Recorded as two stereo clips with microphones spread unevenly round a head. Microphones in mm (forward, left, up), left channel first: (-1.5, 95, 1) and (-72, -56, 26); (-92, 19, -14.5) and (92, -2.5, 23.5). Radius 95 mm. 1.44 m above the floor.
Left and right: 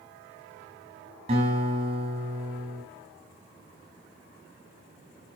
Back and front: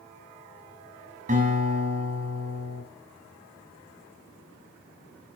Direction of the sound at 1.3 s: 60° right.